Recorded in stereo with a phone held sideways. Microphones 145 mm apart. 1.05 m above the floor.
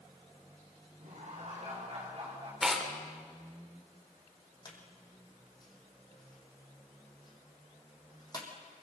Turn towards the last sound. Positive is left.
turn(degrees=30)  # may be behind; listen again after turning